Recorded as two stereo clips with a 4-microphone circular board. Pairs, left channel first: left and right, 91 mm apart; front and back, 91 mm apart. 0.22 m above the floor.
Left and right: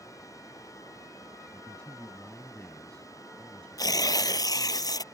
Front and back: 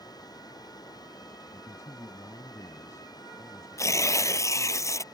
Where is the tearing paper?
50° left.